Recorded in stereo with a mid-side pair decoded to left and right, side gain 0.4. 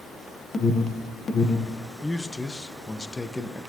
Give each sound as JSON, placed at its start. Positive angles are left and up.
{"t": 0.5, "sound": "an alarm", "azimuth_deg": 40, "distance_m": 1.3}
{"t": 2.0, "sound": "a man speaking", "azimuth_deg": 20, "distance_m": 0.9}